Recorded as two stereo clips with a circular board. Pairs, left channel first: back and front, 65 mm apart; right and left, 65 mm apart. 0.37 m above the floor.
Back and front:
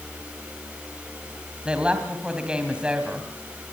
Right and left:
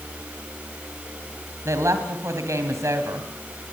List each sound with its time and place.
1.6 s a woman speaking: 70° left, 2.5 m